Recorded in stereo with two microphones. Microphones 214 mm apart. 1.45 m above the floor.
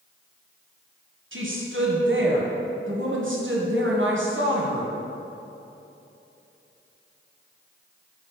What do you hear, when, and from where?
1.3 s a woman speaking: 65° right (ahead or behind), 1.2 m